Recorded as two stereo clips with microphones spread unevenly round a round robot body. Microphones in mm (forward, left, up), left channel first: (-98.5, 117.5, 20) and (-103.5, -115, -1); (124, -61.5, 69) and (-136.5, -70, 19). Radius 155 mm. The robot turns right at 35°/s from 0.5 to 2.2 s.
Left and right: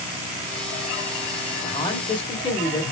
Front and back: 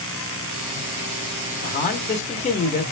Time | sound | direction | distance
1.6 | a man speaking | 30° left | 1.0 m